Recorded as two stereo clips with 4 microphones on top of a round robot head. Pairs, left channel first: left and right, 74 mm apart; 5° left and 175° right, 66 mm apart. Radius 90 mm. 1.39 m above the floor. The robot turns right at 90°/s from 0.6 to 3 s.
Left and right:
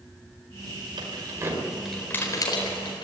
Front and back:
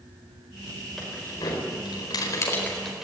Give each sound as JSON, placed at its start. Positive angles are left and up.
{"t": 1.0, "sound": "keys jangling", "azimuth_deg": -80, "distance_m": 4.5}